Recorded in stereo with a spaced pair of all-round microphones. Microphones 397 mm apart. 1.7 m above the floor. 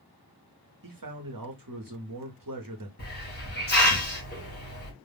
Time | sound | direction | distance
0.8 | a man speaking | 60° right (ahead or behind) | 0.8 m
3.0 | a hiss | 25° left (ahead or behind) | 1.1 m